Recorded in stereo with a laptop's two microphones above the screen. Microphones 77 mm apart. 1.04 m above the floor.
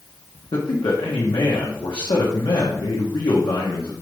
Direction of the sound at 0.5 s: 75° left (ahead or behind).